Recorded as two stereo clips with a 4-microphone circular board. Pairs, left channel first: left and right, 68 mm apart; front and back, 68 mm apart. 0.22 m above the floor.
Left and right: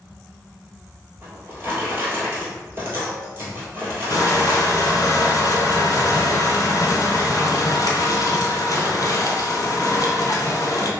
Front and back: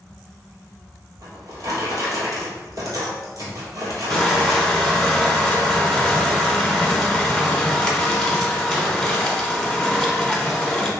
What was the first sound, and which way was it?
A drawer, 145° right.